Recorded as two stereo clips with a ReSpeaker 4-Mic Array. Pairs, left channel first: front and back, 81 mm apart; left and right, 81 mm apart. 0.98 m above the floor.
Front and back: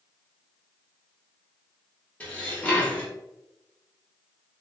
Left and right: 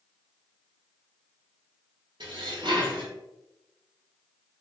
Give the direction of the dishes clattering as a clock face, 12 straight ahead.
2 o'clock.